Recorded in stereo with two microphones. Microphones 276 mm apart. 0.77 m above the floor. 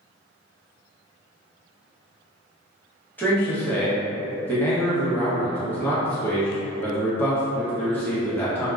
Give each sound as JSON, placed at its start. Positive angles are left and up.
{"t": 3.2, "sound": "a man speaking", "side_deg": 5, "distance_m": 1.0}